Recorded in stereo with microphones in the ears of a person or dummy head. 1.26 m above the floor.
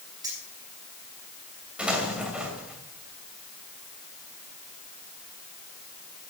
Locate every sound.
0.2 s keys jangling: 20° right (ahead or behind), 5.5 m
1.8 s an explosion: 5° right (ahead or behind), 2.5 m